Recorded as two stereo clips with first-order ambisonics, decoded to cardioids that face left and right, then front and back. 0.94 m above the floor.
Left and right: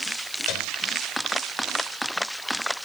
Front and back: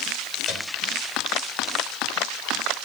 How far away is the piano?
About 4 m.